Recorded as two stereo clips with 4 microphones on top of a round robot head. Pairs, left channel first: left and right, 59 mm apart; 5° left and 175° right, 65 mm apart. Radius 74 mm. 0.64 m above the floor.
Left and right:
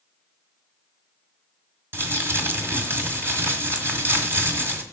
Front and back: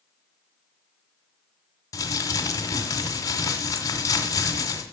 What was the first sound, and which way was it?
Crumpling, 40° right.